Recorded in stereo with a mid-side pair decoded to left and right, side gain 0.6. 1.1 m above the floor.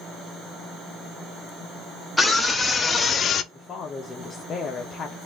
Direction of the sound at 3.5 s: 35° left.